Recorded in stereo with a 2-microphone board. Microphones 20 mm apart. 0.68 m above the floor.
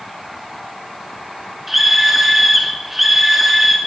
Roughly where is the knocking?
No knocking in this recording.